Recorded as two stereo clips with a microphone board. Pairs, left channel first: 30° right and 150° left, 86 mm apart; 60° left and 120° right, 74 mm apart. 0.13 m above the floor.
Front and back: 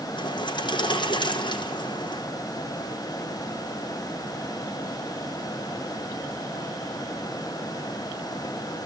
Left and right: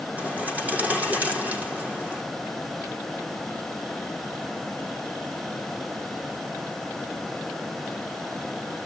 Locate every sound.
0.2 s a bird: 50° right, 4 m